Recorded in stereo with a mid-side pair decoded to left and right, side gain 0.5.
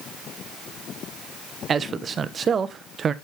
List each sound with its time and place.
1.7 s a man speaking: 40° right, 1.0 m